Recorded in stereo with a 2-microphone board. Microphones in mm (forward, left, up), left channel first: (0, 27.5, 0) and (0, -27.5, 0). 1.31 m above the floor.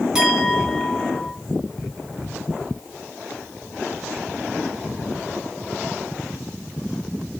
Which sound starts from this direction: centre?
A clink, at 0.1 s.